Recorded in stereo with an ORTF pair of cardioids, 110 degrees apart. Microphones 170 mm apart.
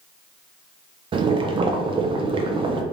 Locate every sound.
1.1 s boiling: 30° right, 0.5 m